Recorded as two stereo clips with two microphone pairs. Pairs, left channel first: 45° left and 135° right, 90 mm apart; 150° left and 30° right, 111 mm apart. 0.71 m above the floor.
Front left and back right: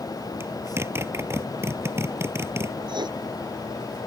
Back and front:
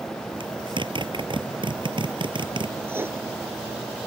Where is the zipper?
75° right.